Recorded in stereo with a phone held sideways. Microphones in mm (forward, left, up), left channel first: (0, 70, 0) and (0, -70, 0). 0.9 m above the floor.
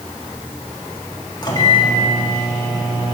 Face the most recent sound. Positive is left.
turn(degrees=30)  # may be behind; listen again after turning